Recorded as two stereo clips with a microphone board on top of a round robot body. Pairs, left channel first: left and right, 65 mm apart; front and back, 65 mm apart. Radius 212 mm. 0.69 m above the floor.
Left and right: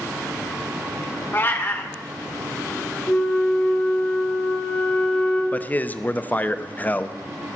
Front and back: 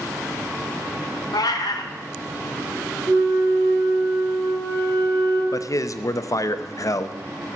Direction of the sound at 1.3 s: 30° left.